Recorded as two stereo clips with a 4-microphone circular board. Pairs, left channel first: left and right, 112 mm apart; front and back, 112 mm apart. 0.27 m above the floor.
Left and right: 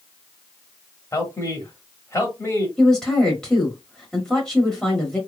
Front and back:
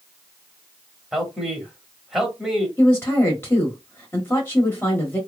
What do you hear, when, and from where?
1.1 s a man speaking: 95° left, 1.1 m
2.8 s a woman speaking: 15° left, 1.2 m